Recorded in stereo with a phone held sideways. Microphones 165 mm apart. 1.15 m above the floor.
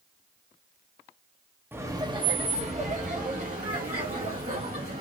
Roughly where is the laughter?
Centre.